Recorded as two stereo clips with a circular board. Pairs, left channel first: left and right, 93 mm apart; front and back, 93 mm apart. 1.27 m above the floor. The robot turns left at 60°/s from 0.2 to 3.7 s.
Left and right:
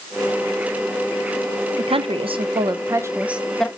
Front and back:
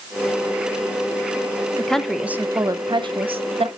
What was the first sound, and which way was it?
A woman speaking, 75° right.